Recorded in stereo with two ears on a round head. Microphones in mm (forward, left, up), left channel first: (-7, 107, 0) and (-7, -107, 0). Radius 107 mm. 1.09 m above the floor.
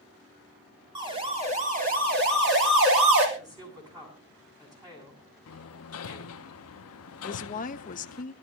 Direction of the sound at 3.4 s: 15° right (ahead or behind).